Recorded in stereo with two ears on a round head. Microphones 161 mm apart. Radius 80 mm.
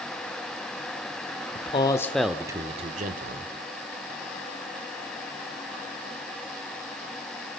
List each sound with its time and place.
1.6 s a man speaking: 35° left (ahead or behind), 1.2 m; by 3.5 s 55° right (ahead or behind), 1.7 m